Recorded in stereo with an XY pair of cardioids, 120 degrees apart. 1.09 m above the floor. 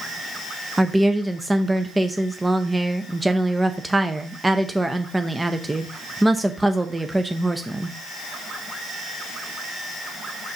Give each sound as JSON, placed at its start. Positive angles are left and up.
{"t": 0.8, "sound": "a woman speaking", "azimuth_deg": -15, "distance_m": 0.7}